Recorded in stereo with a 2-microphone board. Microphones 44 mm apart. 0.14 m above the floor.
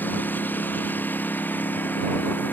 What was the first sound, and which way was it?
A lawn mower, 45° left (ahead or behind).